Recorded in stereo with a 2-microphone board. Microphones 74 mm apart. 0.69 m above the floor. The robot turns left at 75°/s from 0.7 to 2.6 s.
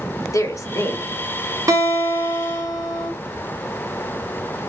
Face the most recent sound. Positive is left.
turn(degrees=-170)